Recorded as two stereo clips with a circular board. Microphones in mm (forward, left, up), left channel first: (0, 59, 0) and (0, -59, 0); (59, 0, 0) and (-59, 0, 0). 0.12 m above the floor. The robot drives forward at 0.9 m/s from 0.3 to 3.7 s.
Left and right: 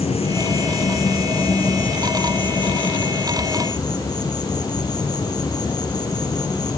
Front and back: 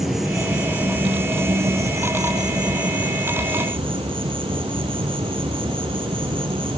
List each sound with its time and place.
0.0 s an insect: 90° left, 3 m; by 6.8 s 140° left, 4.5 m